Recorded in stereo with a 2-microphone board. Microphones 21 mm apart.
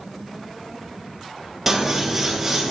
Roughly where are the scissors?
Centre.